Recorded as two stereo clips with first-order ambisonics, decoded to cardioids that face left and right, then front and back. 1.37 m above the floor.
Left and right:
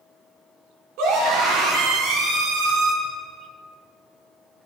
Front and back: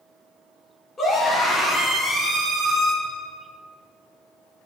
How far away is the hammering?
No hammering in this recording.